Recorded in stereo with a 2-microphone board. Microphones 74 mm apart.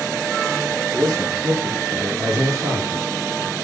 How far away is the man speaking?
About 8.5 m.